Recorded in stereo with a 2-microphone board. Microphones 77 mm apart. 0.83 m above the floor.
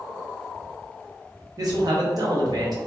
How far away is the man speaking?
About 0.8 m.